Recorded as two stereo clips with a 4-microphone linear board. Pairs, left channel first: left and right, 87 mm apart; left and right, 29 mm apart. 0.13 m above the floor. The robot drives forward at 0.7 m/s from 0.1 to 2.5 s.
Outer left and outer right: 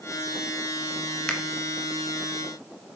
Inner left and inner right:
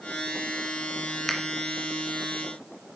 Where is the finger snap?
10° left (ahead or behind), 1.5 m.